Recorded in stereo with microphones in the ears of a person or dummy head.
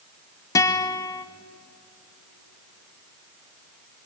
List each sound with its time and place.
0.6 s a guitar: 15° left (ahead or behind), 1.1 m